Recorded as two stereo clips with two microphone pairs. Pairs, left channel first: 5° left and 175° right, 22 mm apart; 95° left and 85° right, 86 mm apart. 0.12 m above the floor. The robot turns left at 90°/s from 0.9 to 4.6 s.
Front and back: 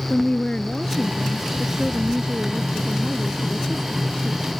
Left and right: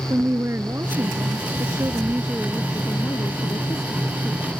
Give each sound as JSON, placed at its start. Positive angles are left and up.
{"t": 0.1, "sound": "a woman speaking", "azimuth_deg": -35}